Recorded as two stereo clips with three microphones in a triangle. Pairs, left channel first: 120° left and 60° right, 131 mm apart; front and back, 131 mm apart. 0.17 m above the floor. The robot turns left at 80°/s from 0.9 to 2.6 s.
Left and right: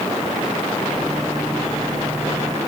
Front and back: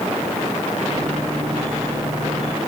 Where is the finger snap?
I don't hear a finger snap.